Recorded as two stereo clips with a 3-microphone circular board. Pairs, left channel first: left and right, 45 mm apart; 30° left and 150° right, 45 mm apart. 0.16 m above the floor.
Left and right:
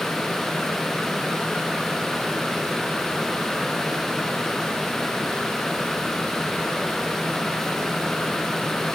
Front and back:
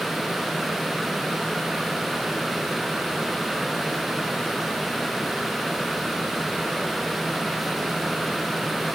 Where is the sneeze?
I don't hear a sneeze.